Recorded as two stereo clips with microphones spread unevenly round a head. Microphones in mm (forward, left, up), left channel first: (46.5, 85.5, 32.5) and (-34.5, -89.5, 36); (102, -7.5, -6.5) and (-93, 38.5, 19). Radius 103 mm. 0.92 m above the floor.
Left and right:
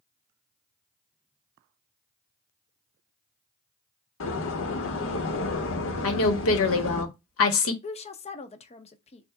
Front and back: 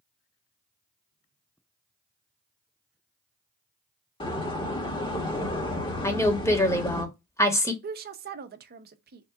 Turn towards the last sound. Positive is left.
turn(degrees=120)